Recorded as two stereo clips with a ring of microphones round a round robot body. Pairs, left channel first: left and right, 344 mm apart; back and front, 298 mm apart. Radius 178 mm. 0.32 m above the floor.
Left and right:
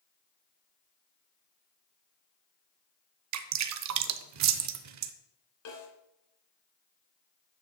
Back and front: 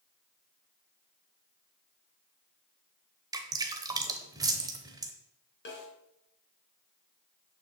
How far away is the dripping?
About 0.7 m.